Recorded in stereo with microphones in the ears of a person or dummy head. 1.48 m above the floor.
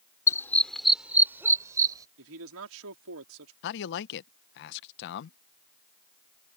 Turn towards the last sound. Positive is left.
turn(degrees=60)  # may be behind; listen again after turning